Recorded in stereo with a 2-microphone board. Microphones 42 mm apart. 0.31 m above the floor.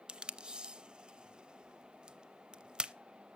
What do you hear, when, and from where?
0.1 s tape being pulled: 25° right (ahead or behind), 0.6 m